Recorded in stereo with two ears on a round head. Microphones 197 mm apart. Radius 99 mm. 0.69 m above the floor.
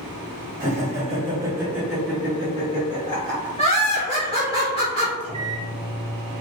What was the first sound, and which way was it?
Laughter, 40° right (ahead or behind).